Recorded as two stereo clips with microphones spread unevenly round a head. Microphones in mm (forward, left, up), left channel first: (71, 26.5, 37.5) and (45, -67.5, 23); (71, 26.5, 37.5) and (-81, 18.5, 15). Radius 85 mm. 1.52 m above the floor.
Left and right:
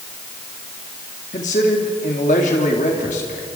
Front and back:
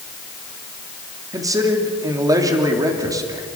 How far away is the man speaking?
About 3 m.